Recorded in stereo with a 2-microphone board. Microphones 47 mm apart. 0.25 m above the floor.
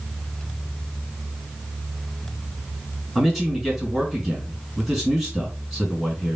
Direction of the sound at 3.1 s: 5° left (ahead or behind).